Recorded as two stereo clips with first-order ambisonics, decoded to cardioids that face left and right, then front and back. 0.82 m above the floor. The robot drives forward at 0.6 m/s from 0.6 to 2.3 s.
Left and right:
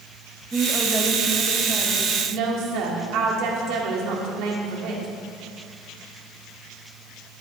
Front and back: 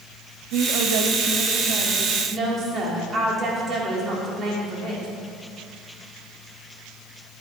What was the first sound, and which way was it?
A woman speaking, 170° right.